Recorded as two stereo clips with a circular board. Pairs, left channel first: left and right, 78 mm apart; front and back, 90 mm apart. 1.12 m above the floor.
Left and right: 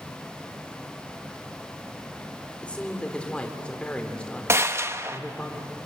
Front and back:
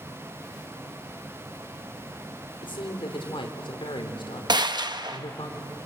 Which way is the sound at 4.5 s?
145° right.